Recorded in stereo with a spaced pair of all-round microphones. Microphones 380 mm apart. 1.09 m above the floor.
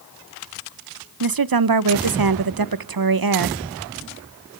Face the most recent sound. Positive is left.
turn(degrees=-65)  # may be behind; listen again after turning